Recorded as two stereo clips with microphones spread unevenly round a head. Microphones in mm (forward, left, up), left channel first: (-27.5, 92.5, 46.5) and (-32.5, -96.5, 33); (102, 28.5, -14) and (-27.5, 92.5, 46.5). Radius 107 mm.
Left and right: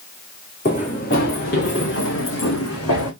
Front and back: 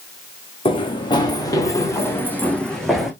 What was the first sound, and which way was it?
Running footsteps, 35° left.